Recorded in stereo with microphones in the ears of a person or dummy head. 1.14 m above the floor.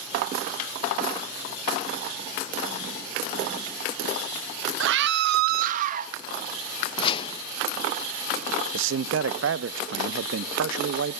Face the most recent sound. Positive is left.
turn(degrees=-65)  # may be behind; listen again after turning